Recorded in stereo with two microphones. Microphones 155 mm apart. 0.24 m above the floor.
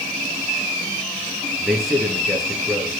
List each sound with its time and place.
1.6 s a man speaking: centre (ahead or behind), 4.5 m